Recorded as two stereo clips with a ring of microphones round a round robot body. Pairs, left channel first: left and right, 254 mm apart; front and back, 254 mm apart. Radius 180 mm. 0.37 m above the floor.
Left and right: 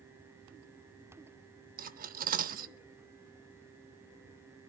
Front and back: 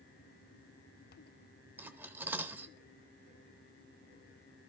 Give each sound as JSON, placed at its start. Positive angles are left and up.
{"t": 1.8, "sound": "cutlery clinking", "azimuth_deg": -105, "distance_m": 0.5}